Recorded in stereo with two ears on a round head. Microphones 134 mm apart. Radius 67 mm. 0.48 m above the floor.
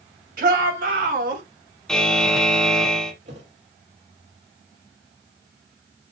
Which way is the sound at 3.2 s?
45° right (ahead or behind).